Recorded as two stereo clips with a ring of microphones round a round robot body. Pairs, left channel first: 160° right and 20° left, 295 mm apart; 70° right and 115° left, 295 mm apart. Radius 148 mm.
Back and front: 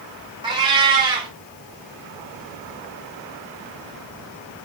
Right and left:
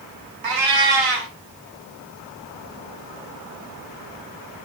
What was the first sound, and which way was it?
A cat meowing, 100° left.